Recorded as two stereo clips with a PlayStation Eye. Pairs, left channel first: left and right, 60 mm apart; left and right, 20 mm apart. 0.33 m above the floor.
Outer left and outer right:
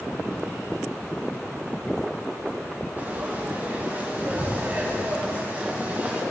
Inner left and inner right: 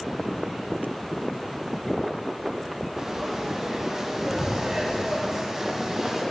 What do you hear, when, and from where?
3.0 s frying: 30° right (ahead or behind), 2.5 m